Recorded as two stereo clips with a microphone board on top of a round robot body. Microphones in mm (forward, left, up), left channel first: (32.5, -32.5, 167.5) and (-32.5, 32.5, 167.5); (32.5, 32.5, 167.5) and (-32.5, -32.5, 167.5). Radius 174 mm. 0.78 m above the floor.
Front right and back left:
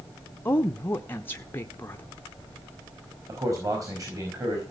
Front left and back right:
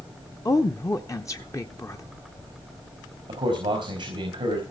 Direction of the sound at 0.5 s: 10° left.